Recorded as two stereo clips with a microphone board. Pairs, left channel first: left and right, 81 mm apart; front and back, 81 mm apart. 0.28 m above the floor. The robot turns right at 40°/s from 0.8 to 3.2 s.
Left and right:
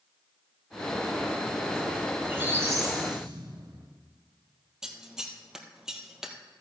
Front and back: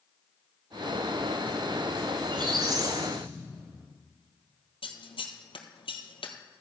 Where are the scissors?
5° right, 1.2 m.